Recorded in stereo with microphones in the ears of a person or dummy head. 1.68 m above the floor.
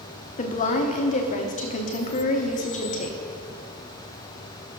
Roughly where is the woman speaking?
Left.